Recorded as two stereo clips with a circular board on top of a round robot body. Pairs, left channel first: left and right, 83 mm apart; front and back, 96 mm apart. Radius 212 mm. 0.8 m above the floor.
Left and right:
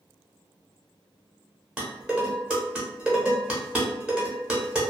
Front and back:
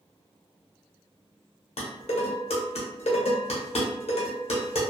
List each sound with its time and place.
1.8 s dishes clattering: 10° right, 0.8 m